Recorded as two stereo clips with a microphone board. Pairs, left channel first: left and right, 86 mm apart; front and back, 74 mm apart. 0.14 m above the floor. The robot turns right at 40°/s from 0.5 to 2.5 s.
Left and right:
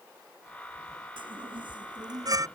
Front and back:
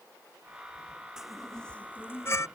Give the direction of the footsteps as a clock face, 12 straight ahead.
No footsteps in this recording.